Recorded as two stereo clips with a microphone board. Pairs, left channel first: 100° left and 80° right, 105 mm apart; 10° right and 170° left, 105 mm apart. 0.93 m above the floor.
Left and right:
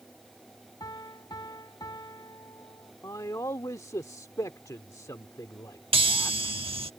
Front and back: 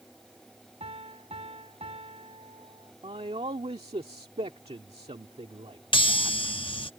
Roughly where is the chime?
Ahead right.